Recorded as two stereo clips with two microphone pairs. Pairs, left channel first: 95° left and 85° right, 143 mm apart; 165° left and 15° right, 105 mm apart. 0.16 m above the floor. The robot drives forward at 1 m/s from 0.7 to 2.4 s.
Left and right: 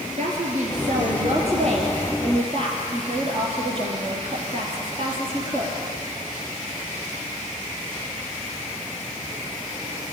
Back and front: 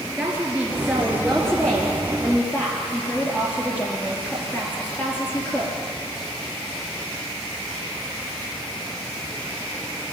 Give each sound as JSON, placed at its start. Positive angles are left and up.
{"t": 0.2, "sound": "a woman speaking", "azimuth_deg": -95, "distance_m": 2.5}